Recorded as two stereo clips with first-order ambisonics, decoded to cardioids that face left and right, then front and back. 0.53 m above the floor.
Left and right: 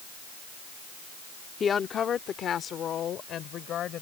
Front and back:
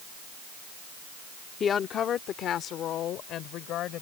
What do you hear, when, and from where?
1.6 s a woman speaking: 40° left